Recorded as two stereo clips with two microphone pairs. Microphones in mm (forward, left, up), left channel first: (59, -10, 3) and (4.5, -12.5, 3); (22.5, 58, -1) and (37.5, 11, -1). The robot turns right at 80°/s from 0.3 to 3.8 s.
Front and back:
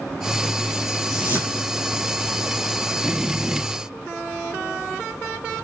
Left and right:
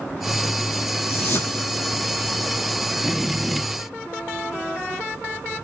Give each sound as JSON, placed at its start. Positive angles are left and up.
{"t": 1.1, "sound": "a whoosh", "azimuth_deg": 95, "distance_m": 2.0}